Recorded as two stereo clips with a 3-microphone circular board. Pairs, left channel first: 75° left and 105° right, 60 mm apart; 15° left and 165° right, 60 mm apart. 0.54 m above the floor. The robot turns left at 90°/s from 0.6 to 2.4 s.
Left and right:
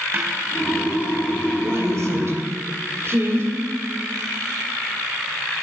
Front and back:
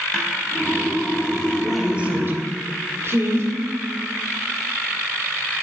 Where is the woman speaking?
65° right, 2 m; by 3.5 s 135° right, 2 m.